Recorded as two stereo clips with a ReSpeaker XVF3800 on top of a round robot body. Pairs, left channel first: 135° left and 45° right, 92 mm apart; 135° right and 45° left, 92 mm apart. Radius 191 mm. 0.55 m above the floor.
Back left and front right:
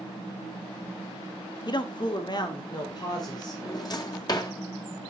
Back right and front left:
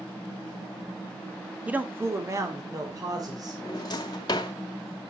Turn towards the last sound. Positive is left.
turn(degrees=180)